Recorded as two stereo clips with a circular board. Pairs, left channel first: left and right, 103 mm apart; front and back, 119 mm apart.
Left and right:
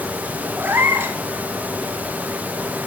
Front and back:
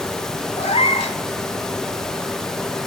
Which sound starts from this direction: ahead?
A cat meowing, at 0.6 s.